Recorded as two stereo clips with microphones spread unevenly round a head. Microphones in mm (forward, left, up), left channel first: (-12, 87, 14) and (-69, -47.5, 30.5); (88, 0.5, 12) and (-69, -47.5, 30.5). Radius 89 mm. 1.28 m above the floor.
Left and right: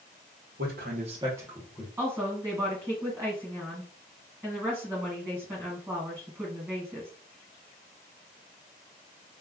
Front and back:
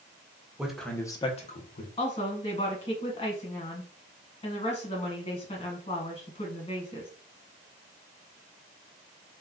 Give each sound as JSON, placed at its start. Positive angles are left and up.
{"t": 0.6, "sound": "a man speaking", "azimuth_deg": -80, "distance_m": 0.9}
{"t": 2.0, "sound": "a woman speaking", "azimuth_deg": -35, "distance_m": 1.4}